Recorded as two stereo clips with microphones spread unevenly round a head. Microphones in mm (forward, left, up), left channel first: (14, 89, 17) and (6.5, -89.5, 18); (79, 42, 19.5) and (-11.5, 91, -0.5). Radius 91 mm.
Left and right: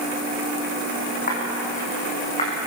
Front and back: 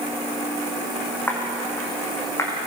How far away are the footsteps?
About 6 m.